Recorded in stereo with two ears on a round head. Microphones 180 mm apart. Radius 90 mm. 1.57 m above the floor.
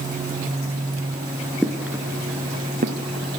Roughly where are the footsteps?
Centre.